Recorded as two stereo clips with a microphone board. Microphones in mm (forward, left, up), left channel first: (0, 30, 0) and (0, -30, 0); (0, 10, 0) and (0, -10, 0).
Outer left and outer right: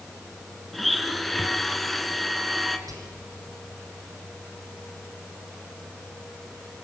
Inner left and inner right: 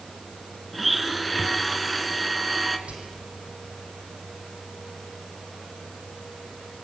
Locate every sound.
0.7 s a blender: centre (ahead or behind), 1.3 m
2.9 s whispering: 75° right (ahead or behind), 6.5 m